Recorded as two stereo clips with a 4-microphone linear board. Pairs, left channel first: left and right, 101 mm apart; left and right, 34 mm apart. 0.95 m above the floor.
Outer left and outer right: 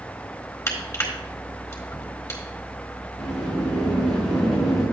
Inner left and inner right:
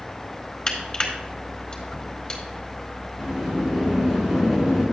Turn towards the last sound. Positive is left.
turn(degrees=-5)  # may be behind; listen again after turning